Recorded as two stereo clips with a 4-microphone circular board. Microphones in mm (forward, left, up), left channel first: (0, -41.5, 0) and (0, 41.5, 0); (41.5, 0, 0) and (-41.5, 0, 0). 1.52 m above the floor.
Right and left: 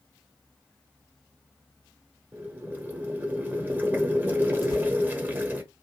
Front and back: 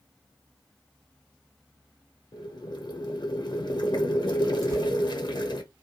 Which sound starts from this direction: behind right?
Tearing paper, at 4.6 s.